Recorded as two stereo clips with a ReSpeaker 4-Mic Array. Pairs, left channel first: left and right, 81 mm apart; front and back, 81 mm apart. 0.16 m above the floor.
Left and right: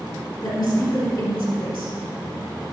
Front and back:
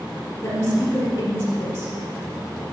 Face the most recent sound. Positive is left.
turn(degrees=55)